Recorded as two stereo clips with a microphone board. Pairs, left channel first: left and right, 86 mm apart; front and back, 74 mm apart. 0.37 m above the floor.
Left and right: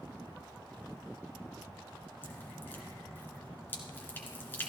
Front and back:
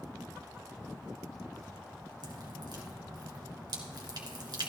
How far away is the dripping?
About 2.5 m.